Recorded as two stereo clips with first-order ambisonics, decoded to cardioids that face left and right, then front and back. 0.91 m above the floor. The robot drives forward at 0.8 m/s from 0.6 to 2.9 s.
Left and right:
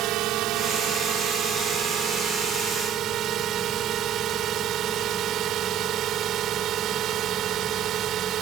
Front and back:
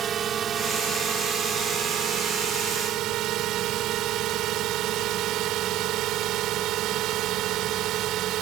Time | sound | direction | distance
0.0 | a drone | 120° right | ?